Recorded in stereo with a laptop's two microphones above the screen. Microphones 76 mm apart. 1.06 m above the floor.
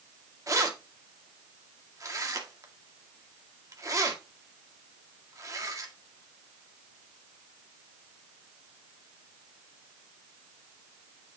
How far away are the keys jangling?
About 1.8 m.